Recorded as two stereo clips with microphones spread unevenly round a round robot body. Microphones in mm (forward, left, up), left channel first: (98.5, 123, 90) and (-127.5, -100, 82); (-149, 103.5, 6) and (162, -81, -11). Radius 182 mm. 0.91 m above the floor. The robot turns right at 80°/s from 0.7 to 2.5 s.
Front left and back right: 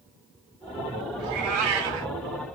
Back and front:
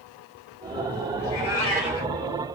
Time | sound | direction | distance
1.2 | a cat meowing | 170° right | 1.2 m